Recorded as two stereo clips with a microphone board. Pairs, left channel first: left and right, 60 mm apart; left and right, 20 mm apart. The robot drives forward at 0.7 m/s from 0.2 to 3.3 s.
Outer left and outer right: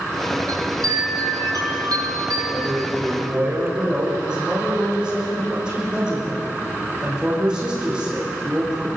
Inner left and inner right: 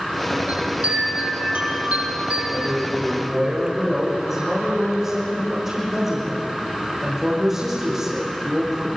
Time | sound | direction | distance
0.5 | a chime | 75° right (ahead or behind) | 6 m
2.5 | a man speaking | 15° right (ahead or behind) | 7 m